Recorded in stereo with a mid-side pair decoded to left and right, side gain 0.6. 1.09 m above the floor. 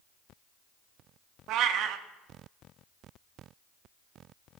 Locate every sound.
1.5 s a cat meowing: 65° right, 1.0 m